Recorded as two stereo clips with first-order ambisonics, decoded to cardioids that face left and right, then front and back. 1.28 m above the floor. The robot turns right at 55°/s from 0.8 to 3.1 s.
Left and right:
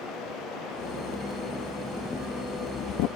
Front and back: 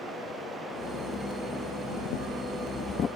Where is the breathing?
10° right; by 3.1 s 65° left.